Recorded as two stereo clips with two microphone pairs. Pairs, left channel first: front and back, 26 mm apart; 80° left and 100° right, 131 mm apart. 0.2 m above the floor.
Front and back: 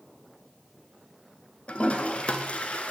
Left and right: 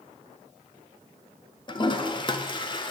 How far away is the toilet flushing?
About 0.6 m.